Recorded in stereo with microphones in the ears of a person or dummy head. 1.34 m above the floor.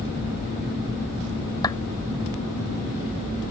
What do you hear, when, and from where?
1.6 s a clap: 20° left (ahead or behind)